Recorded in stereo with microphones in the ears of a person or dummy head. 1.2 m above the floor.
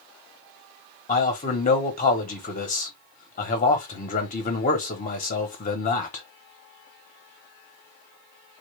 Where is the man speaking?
40° left (ahead or behind), 0.8 m.